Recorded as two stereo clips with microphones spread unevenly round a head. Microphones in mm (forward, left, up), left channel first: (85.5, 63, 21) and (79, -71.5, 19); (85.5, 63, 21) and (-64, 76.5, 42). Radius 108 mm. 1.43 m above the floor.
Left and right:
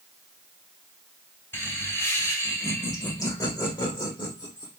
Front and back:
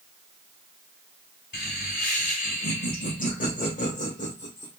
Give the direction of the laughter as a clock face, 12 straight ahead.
12 o'clock.